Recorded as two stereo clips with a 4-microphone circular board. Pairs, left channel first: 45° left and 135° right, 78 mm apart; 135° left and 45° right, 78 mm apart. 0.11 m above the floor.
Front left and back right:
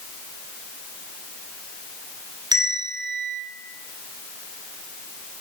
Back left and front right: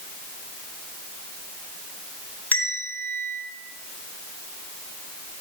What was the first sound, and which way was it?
A bell, 155° right.